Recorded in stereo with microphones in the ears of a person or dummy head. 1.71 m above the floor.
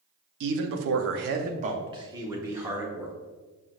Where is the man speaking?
65° right (ahead or behind), 0.6 m; by 3.1 s 5° right (ahead or behind), 1.3 m.